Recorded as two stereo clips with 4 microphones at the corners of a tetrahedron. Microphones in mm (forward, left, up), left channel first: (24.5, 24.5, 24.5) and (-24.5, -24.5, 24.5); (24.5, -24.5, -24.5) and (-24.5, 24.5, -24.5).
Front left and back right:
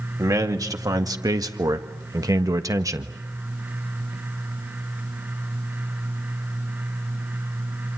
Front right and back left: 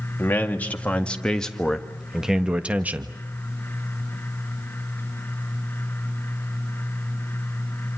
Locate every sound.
0.2 s a man speaking: 105° right, 2 m; by 3.1 s 170° right, 1.5 m